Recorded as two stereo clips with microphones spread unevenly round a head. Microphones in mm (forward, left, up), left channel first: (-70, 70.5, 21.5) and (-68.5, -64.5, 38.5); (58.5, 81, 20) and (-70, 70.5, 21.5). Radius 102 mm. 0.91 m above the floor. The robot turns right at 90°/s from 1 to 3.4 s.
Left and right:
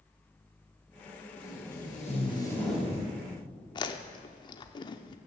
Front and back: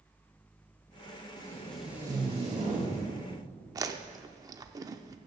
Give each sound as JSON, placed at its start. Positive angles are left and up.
{"t": 1.4, "sound": "tape being pulled", "azimuth_deg": 55, "distance_m": 3.0}
{"t": 3.8, "sound": "chewing", "azimuth_deg": 140, "distance_m": 0.5}